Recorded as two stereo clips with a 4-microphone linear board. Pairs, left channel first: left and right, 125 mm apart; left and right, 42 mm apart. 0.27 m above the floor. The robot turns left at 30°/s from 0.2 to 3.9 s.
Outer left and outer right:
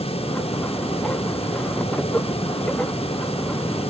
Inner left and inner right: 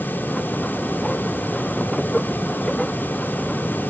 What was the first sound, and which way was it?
Only background noise.